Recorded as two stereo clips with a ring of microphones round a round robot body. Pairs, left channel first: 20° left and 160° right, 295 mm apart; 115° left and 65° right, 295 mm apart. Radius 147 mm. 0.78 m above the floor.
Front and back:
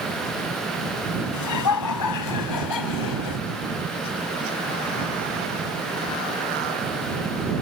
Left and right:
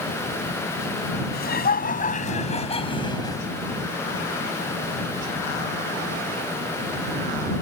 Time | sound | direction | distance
1.3 | laughter | 55° left | ?